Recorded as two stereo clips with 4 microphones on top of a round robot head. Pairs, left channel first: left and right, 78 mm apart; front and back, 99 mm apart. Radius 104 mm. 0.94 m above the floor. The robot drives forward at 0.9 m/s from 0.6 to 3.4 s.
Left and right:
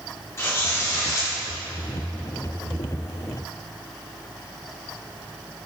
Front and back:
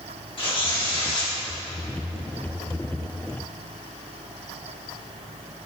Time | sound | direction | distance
0.4 | tearing paper | 35° left | 2.5 m